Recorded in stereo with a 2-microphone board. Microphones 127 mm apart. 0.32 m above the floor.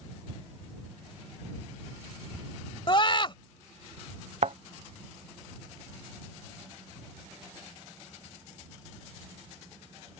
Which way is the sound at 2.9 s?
40° left (ahead or behind).